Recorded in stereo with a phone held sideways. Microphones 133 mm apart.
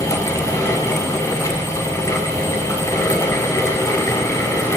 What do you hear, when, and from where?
0.0 s a fan: 20° left (ahead or behind), 0.9 m